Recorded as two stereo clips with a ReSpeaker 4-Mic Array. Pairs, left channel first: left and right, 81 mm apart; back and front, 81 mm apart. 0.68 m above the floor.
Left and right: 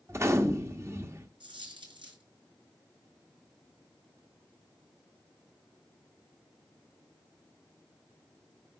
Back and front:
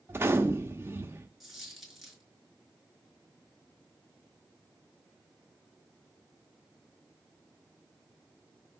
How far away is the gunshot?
About 1.1 m.